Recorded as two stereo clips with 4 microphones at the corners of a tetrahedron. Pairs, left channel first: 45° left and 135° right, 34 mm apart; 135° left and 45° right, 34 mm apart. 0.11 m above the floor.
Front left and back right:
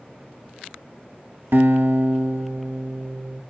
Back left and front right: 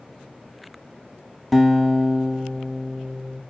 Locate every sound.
1.5 s a guitar: 140° right, 0.8 m